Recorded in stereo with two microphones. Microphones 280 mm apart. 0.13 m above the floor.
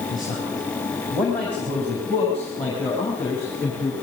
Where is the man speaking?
Centre (ahead or behind), 7 m; by 3.9 s 10° left (ahead or behind), 8 m.